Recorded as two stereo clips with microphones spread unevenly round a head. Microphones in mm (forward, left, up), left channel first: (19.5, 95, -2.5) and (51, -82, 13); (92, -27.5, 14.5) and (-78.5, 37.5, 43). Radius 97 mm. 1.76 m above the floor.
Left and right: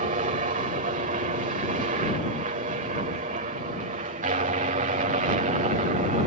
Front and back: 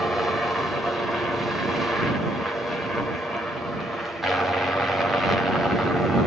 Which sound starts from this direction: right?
A helicopter, at 0.0 s.